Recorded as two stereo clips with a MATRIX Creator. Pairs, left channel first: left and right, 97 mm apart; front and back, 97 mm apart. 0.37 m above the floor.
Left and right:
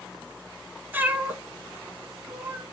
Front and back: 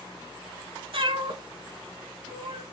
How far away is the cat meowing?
About 0.7 m.